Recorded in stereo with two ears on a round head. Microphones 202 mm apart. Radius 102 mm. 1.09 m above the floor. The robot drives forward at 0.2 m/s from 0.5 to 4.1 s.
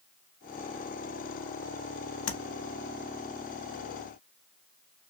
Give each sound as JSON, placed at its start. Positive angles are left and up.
{"t": 2.3, "sound": "tapping", "side_deg": 60, "distance_m": 0.6}